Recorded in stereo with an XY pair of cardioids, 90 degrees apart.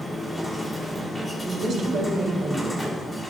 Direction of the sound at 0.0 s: 15° left.